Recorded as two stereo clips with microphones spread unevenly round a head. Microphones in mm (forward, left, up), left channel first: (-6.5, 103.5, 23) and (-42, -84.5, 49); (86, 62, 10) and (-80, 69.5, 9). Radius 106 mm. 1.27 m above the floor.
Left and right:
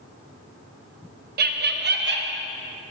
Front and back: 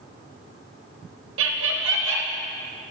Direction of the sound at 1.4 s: 145° right.